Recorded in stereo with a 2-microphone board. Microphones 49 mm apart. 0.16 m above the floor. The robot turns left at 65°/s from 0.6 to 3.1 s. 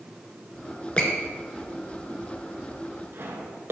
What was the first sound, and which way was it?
A squeak, 25° left (ahead or behind).